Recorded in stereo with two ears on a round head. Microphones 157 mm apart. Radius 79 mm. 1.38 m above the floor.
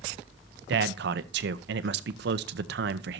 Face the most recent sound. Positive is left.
turn(degrees=-65)  # may be behind; listen again after turning